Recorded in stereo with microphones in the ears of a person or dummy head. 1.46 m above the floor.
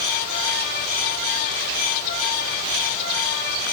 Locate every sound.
Only background noise.